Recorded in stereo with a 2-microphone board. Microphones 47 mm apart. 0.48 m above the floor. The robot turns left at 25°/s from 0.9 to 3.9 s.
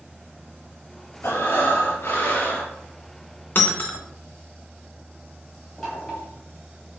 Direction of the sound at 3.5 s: 45° left (ahead or behind).